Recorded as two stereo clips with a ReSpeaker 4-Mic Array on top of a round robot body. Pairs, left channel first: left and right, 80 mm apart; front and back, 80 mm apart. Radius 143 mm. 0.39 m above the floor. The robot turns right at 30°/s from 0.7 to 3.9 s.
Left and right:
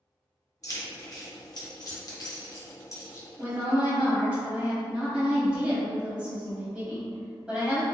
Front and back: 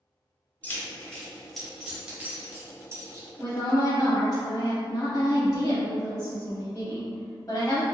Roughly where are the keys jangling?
Ahead left.